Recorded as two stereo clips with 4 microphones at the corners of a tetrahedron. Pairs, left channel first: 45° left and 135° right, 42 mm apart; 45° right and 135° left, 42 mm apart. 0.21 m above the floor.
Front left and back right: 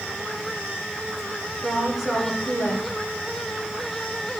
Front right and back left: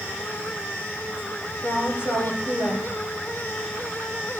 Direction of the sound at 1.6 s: 50° right.